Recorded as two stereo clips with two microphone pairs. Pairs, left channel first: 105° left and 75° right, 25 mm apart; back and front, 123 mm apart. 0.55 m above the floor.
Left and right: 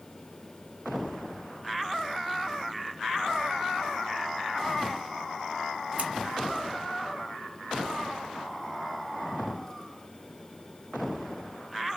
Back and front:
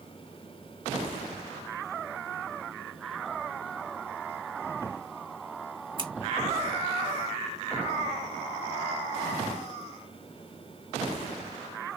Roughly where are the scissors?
Ahead right.